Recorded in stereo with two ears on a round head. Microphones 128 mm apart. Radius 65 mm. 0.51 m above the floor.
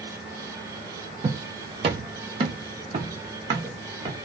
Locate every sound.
1.2 s footsteps: 30° right (ahead or behind), 0.6 m; by 4.2 s 25° right (ahead or behind), 1.5 m